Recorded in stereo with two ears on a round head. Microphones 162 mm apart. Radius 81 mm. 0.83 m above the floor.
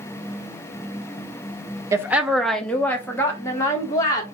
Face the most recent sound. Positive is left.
turn(degrees=20)  # may be behind; listen again after turning